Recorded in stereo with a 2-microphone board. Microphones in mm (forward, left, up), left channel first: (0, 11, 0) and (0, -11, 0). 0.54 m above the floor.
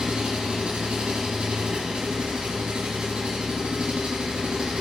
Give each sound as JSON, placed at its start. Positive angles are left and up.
{"t": 0.0, "sound": "an engine running", "side_deg": -50, "distance_m": 3.5}